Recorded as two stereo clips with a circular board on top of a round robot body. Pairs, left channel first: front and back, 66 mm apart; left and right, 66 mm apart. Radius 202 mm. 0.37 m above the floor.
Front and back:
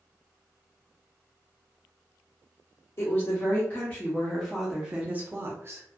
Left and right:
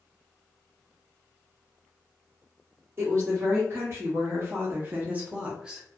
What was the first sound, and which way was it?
A woman speaking, 45° right.